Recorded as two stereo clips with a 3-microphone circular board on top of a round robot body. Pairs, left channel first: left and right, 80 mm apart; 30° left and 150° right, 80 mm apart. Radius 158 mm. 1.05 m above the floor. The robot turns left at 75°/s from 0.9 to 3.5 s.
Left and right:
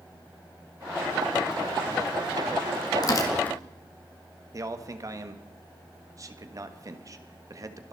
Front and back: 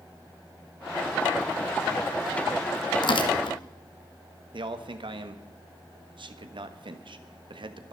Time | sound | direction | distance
3.0 | tearing paper | 55° left | 1.8 m
4.5 | a man speaking | 135° right | 1.4 m